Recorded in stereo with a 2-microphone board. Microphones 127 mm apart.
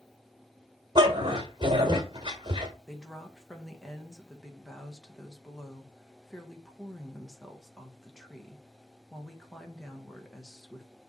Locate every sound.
0.9 s a dog barking: 40° right (ahead or behind), 1.7 m
2.9 s a woman speaking: 5° left (ahead or behind), 1.4 m